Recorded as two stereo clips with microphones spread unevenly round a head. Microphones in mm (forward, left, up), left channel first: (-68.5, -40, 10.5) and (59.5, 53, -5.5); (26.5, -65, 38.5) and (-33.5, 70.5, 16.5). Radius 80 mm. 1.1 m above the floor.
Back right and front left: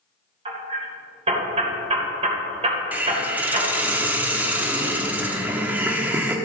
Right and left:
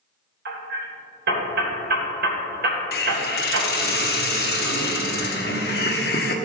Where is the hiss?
45° right, 1.2 m.